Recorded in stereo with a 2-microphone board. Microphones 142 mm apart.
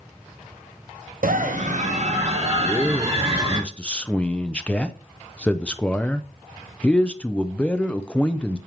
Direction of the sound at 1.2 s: 75° right (ahead or behind).